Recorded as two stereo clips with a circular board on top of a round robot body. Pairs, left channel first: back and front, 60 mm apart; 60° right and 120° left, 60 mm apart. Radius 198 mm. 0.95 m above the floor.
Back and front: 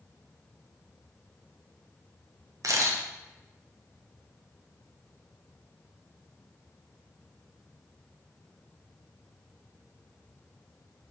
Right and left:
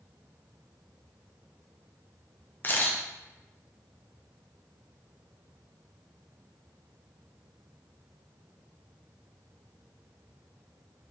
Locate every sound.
2.6 s a camera shutter: 10° right, 1.4 m